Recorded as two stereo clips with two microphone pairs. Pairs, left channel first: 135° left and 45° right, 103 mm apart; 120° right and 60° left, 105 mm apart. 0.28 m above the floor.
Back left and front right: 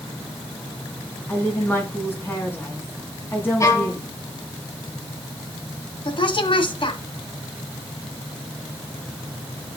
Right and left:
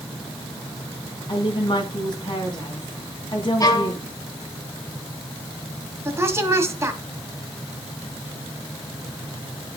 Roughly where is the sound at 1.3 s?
Behind.